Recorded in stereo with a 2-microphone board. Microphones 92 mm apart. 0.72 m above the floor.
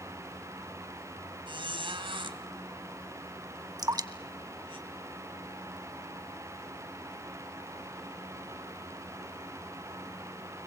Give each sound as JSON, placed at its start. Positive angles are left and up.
{"t": 1.5, "sound": "a squeak", "side_deg": -70, "distance_m": 2.5}
{"t": 3.8, "sound": "dripping", "side_deg": -45, "distance_m": 1.0}